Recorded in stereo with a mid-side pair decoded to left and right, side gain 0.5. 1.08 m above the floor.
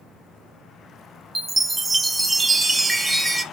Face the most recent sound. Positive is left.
turn(degrees=-15)